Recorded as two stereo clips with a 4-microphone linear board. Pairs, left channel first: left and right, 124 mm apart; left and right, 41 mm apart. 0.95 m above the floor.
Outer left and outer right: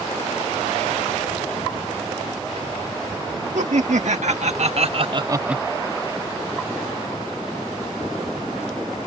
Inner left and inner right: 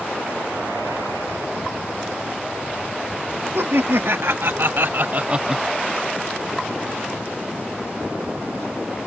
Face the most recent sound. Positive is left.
turn(degrees=5)  # may be behind; listen again after turning